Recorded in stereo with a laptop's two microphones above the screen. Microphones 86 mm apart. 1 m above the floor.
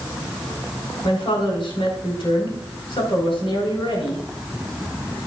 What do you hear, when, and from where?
1.0 s a woman speaking: 80° left, 4 m